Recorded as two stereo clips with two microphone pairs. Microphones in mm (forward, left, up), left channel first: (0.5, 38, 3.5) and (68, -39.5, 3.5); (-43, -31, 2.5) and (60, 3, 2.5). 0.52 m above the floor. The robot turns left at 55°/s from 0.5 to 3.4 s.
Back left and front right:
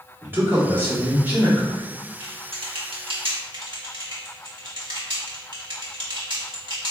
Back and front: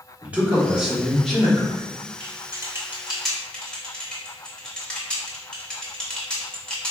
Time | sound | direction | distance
0.2 | a man speaking | 35° right | 0.9 m
2.2 | typing on a keyboard | 15° right | 0.9 m